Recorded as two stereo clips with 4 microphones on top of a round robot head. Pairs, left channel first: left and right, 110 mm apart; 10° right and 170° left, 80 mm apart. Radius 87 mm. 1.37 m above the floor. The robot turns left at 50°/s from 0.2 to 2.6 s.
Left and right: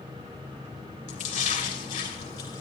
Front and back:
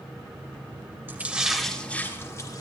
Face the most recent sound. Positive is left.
turn(degrees=30)